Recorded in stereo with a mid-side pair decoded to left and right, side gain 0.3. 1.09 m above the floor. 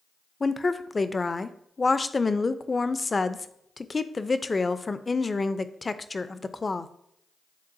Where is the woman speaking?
35° left, 0.6 m.